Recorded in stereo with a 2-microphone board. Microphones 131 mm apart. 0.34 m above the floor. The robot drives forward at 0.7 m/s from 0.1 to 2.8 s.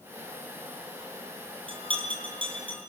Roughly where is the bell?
Right.